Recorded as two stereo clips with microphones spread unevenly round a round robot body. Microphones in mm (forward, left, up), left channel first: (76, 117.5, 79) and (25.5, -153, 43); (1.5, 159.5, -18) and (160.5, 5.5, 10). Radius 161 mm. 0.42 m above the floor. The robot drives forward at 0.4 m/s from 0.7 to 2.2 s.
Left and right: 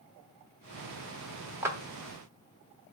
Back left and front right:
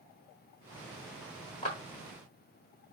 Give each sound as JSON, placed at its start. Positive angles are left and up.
{"t": 1.6, "sound": "a clap", "azimuth_deg": -170, "distance_m": 1.0}